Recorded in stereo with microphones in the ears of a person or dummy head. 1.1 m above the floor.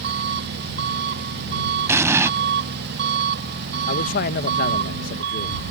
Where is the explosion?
15° right (ahead or behind).